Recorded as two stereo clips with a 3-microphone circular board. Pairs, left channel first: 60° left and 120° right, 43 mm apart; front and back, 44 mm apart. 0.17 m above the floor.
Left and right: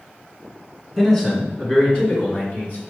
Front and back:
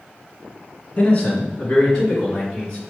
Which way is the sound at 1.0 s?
15° right.